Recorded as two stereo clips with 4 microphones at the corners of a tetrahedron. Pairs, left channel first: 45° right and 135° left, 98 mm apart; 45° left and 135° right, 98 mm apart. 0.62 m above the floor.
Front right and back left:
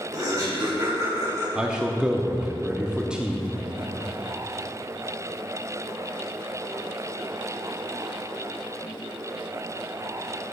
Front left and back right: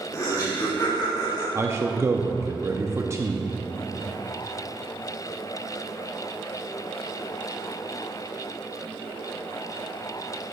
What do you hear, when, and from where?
0.1 s laughter: 95° left, 2 m; by 1.4 s 80° left, 3 m
1.6 s a man speaking: 155° right, 0.6 m